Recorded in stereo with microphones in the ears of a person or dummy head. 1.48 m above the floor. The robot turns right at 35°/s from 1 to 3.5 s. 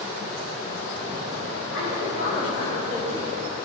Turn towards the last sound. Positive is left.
turn(degrees=175)